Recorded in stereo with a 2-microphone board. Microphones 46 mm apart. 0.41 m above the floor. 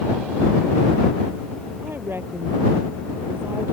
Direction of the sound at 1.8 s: 55° right (ahead or behind).